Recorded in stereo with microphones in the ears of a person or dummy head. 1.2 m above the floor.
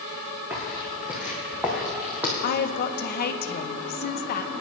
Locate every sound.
0.5 s footsteps: 10° right (ahead or behind), 3.5 m
2.4 s a woman speaking: 45° left (ahead or behind), 0.8 m